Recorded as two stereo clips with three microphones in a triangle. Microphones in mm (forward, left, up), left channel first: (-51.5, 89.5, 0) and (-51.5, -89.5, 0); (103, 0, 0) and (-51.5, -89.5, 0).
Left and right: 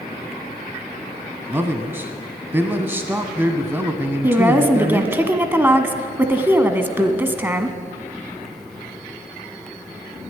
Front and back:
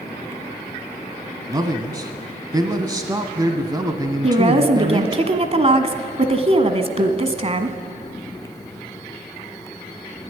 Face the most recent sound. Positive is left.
turn(degrees=-160)